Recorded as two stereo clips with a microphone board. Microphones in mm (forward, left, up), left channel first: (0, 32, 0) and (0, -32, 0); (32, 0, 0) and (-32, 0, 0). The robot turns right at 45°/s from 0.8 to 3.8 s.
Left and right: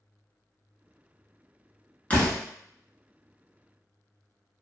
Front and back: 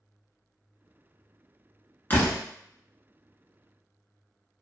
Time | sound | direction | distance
2.1 | a door slam | 35° left | 0.9 m